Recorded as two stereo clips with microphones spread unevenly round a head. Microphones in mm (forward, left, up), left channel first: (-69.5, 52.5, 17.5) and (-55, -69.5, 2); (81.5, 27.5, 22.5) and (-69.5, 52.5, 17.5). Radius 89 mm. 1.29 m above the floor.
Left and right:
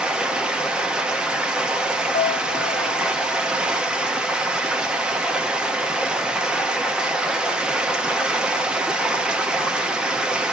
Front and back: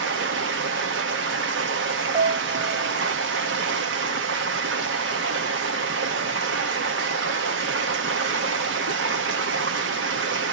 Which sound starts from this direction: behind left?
A piano, at 2.1 s.